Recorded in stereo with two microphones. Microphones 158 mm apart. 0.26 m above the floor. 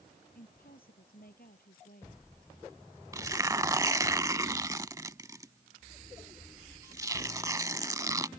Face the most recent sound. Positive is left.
turn(degrees=-20)  # may be behind; listen again after turning